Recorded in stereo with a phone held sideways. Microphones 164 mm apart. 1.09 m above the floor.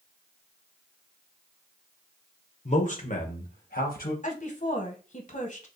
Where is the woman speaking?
50° left (ahead or behind), 1.0 m.